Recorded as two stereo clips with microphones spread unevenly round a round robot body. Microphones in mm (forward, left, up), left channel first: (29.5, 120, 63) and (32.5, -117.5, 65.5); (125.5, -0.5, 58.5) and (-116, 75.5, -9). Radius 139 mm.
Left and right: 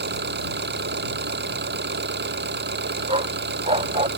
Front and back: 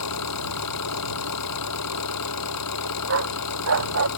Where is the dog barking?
155° right.